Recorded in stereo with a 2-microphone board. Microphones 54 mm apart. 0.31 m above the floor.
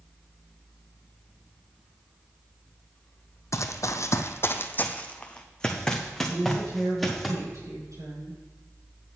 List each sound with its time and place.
3.5 s running footsteps: 60° left (ahead or behind), 0.7 m; by 7.3 s centre (ahead or behind), 2.0 m
6.3 s a woman speaking: 70° right (ahead or behind), 5 m